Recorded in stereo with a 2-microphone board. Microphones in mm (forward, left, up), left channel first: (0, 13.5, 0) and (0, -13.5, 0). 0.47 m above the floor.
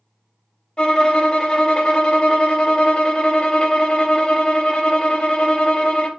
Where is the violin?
40° left (ahead or behind), 0.6 m.